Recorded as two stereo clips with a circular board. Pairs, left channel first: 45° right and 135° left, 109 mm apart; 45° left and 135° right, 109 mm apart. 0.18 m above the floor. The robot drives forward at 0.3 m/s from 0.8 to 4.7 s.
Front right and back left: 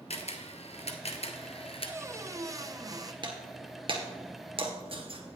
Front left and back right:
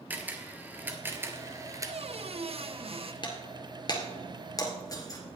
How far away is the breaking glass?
About 1.9 m.